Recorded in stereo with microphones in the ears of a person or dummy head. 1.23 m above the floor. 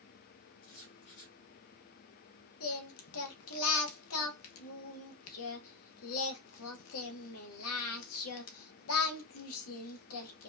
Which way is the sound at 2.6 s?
80° left.